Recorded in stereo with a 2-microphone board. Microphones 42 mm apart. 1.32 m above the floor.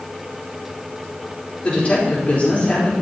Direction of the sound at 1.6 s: 35° left (ahead or behind).